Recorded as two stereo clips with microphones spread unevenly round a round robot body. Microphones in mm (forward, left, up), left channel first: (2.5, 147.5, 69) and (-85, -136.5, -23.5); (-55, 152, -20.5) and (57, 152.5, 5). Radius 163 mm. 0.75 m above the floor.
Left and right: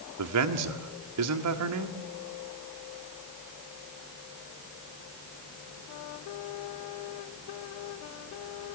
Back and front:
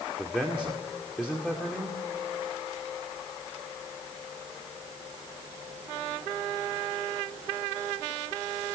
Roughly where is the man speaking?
Right.